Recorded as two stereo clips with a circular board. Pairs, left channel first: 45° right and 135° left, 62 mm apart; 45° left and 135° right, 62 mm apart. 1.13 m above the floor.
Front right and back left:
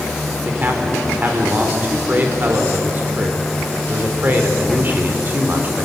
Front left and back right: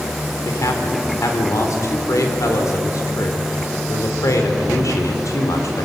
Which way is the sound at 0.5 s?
75° left.